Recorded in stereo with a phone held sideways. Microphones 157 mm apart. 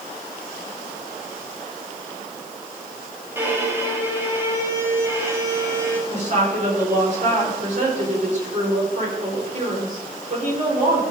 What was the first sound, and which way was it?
A violin, 15° right (ahead or behind).